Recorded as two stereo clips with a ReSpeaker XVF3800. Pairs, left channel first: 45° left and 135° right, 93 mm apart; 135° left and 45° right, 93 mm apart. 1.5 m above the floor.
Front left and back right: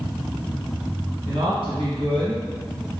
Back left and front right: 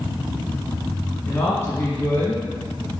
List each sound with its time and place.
1.2 s a woman speaking: 165° right, 1.7 m